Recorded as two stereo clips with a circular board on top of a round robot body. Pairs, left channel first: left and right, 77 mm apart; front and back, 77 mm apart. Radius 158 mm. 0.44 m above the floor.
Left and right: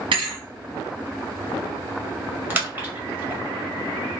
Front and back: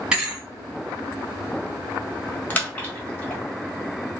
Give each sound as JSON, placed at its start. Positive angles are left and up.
{"t": 0.1, "sound": "a thud", "azimuth_deg": -100, "distance_m": 1.3}
{"t": 2.5, "sound": "a splash", "azimuth_deg": -50, "distance_m": 1.4}